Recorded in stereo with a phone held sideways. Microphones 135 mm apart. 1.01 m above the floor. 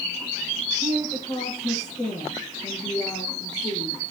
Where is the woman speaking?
30° left (ahead or behind), 9.5 m.